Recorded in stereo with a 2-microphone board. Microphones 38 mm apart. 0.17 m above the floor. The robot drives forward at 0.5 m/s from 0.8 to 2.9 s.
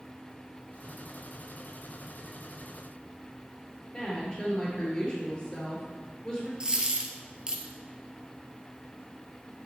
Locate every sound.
3.9 s a woman speaking: 25° left (ahead or behind), 3.5 m
6.6 s a dropped coin: 20° right (ahead or behind), 1.2 m